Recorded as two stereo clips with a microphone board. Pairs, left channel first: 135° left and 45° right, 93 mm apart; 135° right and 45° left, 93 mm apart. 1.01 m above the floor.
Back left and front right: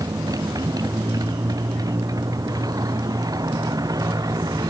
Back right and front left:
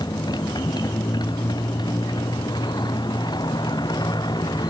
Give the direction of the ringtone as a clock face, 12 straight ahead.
I don't hear a ringtone.